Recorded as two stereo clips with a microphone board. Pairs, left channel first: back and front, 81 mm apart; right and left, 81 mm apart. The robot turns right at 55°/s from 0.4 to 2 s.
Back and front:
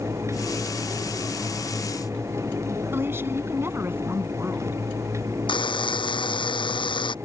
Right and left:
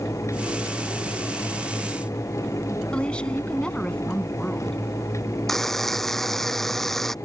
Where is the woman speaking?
25° right.